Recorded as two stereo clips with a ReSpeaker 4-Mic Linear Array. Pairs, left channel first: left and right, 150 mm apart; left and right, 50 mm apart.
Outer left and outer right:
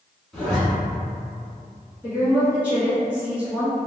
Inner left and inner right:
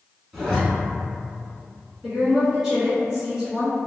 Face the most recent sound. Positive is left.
turn(degrees=-10)  # may be behind; listen again after turning